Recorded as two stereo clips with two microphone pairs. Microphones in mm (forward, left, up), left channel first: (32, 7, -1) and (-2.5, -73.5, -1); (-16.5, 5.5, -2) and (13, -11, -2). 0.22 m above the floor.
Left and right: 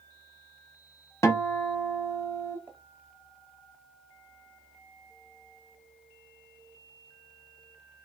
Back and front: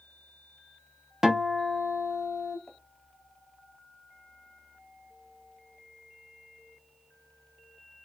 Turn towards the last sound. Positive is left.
turn(degrees=-135)